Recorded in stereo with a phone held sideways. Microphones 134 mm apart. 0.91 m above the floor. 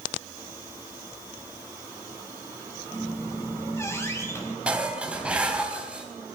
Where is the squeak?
20° left (ahead or behind), 5 m.